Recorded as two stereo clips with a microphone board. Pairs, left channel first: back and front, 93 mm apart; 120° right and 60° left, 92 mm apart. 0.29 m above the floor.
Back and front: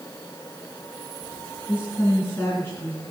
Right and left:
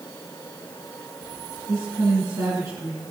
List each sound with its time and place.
1.7 s a woman speaking: 115° left, 3 m